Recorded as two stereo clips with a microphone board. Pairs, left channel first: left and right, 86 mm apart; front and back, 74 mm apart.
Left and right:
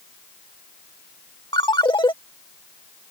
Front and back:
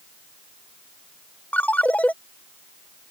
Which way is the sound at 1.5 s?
70° left.